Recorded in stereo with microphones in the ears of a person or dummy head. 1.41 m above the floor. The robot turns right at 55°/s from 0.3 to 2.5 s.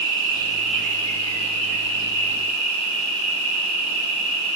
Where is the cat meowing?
I don't hear a cat meowing.